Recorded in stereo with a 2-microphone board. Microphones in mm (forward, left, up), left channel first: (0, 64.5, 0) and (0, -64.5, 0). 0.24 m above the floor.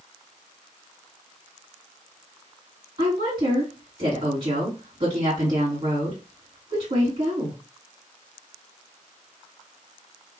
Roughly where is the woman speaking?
Right.